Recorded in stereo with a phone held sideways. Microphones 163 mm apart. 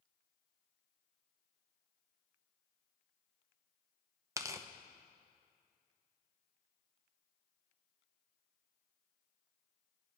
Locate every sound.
4.4 s tearing paper: 20° right (ahead or behind), 0.7 m